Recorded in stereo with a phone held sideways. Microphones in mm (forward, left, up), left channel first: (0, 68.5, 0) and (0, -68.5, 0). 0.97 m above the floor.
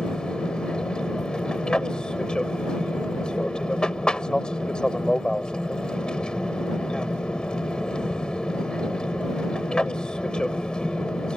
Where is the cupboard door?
No cupboard door in this recording.